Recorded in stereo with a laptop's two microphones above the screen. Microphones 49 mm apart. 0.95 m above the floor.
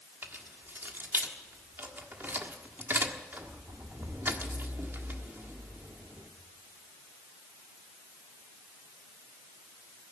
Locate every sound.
0.2 s keys jangling: 45° right (ahead or behind), 1.4 m